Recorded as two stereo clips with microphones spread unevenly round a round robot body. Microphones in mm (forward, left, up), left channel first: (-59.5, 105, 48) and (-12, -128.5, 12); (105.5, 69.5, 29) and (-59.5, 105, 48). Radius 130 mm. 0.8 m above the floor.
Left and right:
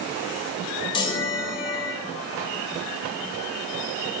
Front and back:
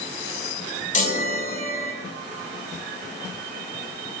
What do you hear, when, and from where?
0.9 s a chime: 30° left, 4.5 m